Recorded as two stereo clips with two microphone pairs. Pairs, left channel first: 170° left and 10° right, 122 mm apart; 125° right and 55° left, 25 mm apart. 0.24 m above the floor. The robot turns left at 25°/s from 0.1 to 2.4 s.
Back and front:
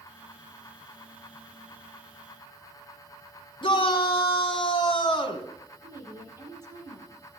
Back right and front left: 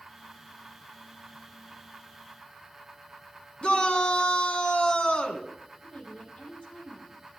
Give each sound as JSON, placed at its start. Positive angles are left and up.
{"t": 3.6, "sound": "a shout", "azimuth_deg": -155, "distance_m": 2.5}
{"t": 5.8, "sound": "a woman speaking", "azimuth_deg": -80, "distance_m": 6.5}